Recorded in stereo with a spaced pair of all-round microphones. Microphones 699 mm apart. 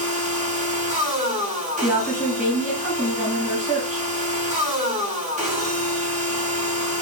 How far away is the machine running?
About 0.8 m.